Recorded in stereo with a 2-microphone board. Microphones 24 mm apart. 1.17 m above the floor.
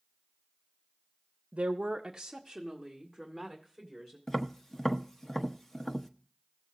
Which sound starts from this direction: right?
A woman speaking, at 1.5 s.